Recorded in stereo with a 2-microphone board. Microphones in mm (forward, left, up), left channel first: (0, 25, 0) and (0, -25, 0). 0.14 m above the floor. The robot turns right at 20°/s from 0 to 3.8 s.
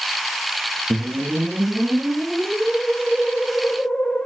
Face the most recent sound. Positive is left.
turn(degrees=30)